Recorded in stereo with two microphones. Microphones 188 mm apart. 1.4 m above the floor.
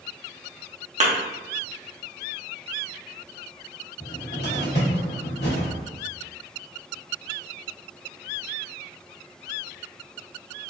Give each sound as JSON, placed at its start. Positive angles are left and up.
{"t": 1.0, "sound": "a thud", "side_deg": -40, "distance_m": 1.0}
{"t": 4.0, "sound": "a cupboard door", "side_deg": 65, "distance_m": 1.8}